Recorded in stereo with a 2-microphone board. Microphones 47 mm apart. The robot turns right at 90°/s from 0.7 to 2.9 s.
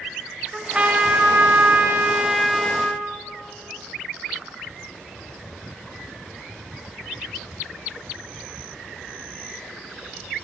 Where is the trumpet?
160° right, 0.6 m; by 3.0 s 35° left, 0.6 m.